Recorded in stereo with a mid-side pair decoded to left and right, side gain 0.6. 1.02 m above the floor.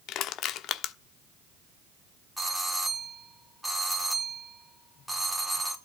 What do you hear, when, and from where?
0.1 s crushing: 60° left, 1.1 m
2.4 s a doorbell: 5° right, 3.5 m